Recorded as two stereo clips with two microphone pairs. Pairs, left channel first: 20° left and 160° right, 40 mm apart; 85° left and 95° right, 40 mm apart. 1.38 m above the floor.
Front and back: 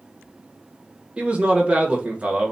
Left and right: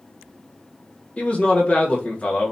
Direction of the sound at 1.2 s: 140° left.